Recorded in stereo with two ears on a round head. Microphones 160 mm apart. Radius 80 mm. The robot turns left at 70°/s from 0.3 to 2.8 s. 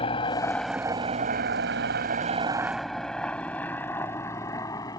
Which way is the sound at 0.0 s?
30° left (ahead or behind).